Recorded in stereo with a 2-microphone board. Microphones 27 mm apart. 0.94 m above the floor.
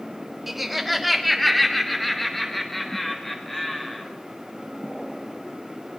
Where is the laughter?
10° right (ahead or behind), 1.6 m; by 4.1 s 10° left (ahead or behind), 4 m.